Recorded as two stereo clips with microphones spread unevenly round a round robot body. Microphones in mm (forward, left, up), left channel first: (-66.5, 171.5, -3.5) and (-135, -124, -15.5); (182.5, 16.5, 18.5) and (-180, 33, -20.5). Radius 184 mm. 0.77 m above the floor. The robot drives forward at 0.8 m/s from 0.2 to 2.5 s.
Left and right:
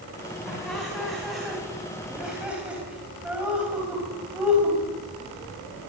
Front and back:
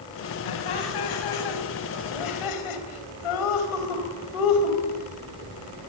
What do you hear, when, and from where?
0.5 s laughter: 10° right, 5.5 m; by 4.8 s 15° right, 4 m